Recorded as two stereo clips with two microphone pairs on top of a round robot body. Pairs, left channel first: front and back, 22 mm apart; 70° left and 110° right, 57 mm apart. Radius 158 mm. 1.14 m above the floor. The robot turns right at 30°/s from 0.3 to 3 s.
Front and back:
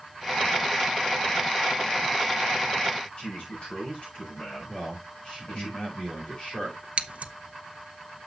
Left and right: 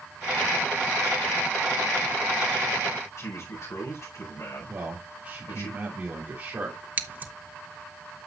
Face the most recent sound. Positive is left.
turn(degrees=-170)